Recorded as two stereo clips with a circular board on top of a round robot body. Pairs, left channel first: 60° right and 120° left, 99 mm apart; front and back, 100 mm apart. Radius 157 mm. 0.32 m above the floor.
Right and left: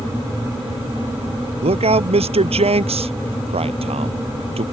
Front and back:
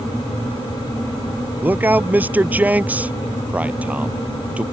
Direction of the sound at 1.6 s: 110° left.